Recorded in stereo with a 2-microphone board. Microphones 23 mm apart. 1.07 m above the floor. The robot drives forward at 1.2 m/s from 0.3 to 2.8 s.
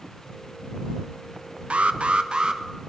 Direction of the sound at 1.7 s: 65° right (ahead or behind).